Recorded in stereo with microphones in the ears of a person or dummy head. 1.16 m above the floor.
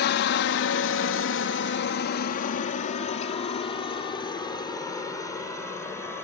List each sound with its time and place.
0.0 s a helicopter: 55° left (ahead or behind); by 6.2 s 15° left (ahead or behind)